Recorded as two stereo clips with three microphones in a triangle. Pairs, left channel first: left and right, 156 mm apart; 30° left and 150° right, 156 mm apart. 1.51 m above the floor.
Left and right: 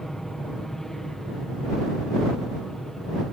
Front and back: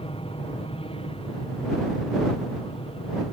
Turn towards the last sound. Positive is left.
turn(degrees=5)